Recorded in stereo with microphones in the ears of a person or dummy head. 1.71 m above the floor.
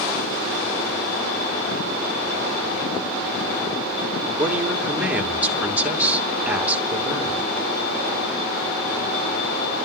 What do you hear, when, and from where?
4.4 s a woman speaking: 10° right (ahead or behind), 2.5 m